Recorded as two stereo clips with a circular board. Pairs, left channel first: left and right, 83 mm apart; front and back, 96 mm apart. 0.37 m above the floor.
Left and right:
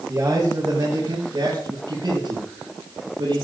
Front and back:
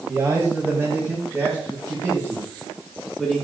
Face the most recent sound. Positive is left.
turn(degrees=-105)